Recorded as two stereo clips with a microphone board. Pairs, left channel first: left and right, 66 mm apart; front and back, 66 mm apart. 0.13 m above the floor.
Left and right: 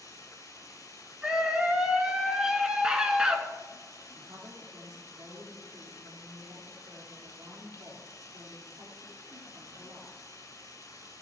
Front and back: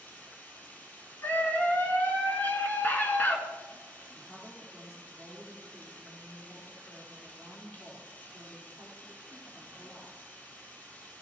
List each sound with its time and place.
0.0 s running water: 60° left, 2 m
1.2 s a scream: 30° right, 1.7 m
4.2 s a woman speaking: 80° right, 4 m